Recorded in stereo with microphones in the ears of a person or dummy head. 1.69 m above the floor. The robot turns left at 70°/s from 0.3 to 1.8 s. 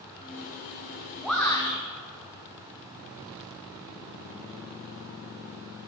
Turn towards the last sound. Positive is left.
turn(degrees=145)